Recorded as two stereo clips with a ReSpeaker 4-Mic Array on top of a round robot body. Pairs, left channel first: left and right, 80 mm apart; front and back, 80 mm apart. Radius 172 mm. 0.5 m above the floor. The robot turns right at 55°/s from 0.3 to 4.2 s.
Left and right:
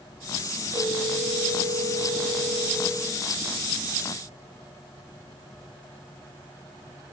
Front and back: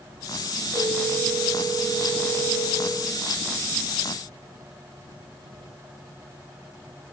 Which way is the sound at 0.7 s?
115° right.